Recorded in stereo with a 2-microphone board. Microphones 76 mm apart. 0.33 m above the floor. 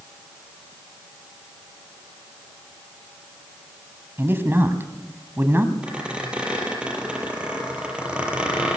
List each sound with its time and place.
4.2 s a man speaking: 30° right (ahead or behind), 2.5 m
5.8 s a squeak: 15° right (ahead or behind), 5 m